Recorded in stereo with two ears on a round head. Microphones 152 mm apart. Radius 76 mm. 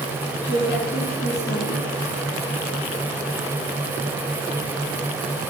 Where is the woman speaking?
35° left (ahead or behind), 6 m.